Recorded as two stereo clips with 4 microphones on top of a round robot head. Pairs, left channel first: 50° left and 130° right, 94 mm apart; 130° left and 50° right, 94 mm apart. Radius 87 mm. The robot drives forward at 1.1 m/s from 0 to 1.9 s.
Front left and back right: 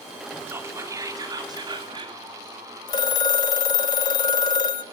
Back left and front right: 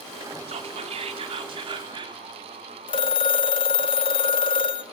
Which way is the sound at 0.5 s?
65° right.